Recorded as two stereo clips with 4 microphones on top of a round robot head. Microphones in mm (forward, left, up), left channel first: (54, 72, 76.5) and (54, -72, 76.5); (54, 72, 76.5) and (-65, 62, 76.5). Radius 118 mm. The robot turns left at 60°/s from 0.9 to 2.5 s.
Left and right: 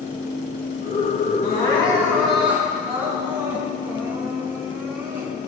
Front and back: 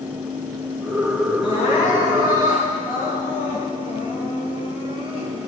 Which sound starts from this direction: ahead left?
Crying, at 1.4 s.